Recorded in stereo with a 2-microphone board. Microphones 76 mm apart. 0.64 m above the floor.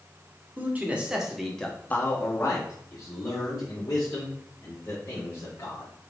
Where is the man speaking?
25° right (ahead or behind), 1.0 m; by 5.9 s 50° left (ahead or behind), 3 m.